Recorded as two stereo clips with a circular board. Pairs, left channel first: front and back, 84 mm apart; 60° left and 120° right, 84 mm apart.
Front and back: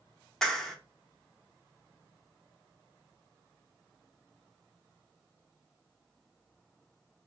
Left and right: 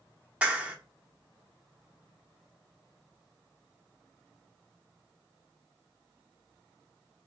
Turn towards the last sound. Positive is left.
turn(degrees=-70)